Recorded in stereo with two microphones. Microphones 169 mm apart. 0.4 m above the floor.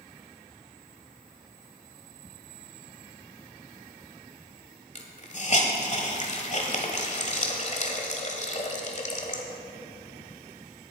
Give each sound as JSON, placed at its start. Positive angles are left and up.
{"t": 5.0, "sound": "a hiss", "side_deg": 45, "distance_m": 1.3}